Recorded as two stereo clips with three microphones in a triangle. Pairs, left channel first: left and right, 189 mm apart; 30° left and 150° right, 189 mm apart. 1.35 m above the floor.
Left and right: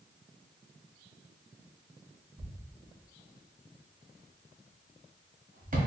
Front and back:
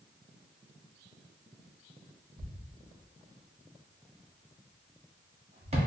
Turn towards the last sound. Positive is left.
turn(degrees=-105)